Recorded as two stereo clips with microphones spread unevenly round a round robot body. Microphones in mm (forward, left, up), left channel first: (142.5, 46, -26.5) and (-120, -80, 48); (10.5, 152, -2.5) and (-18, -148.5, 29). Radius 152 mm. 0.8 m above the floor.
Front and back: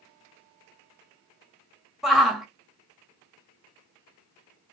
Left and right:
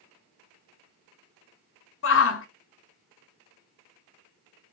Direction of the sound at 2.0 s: 105° left.